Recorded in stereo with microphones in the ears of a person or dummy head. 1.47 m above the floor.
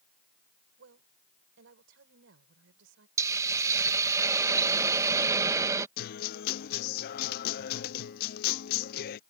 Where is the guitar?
55° left (ahead or behind).